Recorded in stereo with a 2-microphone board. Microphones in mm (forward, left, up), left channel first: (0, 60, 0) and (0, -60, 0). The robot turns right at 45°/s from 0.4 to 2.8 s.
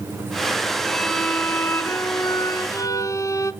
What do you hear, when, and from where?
0.9 s a violin: centre (ahead or behind), 0.9 m; by 3.5 s 30° left (ahead or behind), 0.9 m